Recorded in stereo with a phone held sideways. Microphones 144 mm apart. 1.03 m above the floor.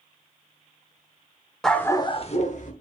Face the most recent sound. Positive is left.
turn(degrees=60)  # may be behind; listen again after turning